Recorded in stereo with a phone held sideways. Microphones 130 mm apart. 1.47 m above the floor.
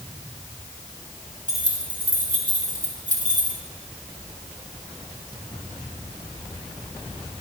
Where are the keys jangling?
75° right (ahead or behind), 2.5 m; by 3.6 s 65° right (ahead or behind), 1.5 m.